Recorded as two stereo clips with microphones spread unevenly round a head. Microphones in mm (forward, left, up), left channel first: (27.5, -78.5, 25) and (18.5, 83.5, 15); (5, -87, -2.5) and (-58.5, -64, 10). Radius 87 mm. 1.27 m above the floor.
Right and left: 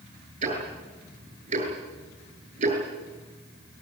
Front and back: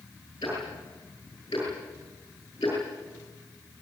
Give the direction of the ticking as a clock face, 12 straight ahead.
11 o'clock.